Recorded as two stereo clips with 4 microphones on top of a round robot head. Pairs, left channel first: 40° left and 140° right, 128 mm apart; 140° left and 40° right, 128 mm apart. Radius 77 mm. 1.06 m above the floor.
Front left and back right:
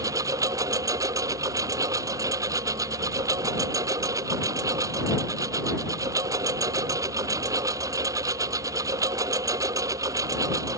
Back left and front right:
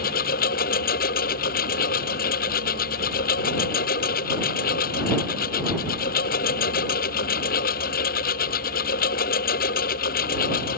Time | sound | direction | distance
0.0 | a lawn mower | 150° left | ?